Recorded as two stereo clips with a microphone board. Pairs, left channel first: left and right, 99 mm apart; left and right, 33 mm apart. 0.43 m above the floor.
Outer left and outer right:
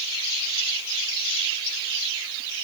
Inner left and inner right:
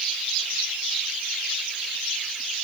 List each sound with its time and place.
Only background noise.